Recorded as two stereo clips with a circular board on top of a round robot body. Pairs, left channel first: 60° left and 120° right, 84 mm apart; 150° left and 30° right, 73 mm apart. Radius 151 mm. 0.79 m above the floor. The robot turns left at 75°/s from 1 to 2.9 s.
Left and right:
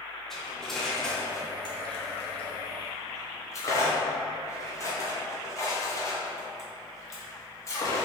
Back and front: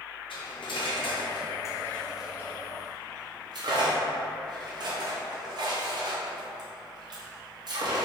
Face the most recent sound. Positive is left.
turn(degrees=0)